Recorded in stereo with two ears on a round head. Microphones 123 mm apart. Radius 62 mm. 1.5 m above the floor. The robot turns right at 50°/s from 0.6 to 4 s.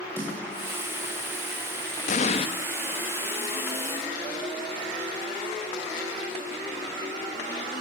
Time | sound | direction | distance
0.2 | a snare drum | 15° right (ahead or behind) | 7.5 m
2.1 | an explosion | 60° left (ahead or behind) | 1.7 m